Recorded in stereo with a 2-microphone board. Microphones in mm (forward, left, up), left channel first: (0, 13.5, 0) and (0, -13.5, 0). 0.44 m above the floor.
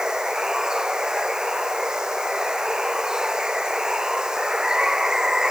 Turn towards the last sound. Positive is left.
turn(degrees=-20)  # may be behind; listen again after turning